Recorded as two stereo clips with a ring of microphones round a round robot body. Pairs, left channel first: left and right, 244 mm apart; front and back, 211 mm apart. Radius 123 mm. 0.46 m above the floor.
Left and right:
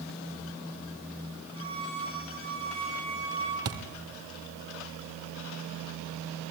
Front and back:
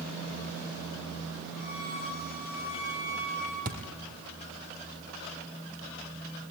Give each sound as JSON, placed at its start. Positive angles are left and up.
{"t": 1.5, "sound": "a violin", "azimuth_deg": -20, "distance_m": 9.5}
{"t": 3.6, "sound": "a thud", "azimuth_deg": -120, "distance_m": 2.5}